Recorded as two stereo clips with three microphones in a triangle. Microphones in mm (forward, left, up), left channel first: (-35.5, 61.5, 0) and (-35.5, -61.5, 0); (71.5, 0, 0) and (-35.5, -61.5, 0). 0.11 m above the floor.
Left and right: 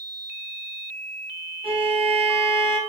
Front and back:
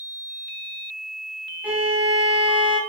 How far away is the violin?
About 1.0 m.